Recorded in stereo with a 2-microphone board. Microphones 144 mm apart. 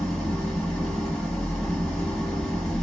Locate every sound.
0.0 s an engine running: 5° left (ahead or behind), 1.3 m